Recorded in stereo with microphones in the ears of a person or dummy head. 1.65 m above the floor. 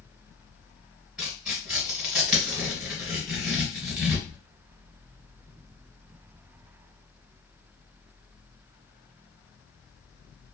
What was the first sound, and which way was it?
Tearing paper, centre (ahead or behind).